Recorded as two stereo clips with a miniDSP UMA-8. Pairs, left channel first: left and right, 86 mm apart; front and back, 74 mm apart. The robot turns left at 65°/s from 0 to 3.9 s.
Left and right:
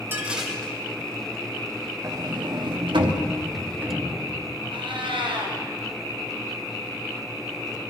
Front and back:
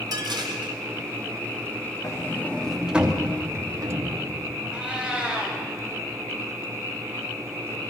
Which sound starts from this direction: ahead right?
A sliding door, at 2.0 s.